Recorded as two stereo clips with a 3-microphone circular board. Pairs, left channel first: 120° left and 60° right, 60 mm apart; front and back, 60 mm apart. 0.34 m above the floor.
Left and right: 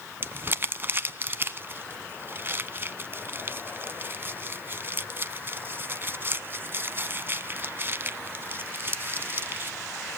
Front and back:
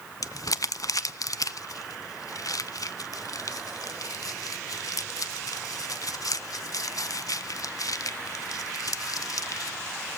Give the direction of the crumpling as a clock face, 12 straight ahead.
12 o'clock.